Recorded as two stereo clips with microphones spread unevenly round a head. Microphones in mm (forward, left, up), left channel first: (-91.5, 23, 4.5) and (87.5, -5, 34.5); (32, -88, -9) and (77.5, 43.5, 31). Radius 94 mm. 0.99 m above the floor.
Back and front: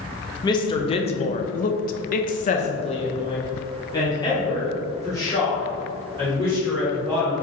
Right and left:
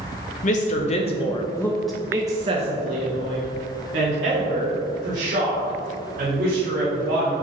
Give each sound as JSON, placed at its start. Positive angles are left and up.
{"t": 0.4, "sound": "a woman speaking", "azimuth_deg": -125, "distance_m": 1.1}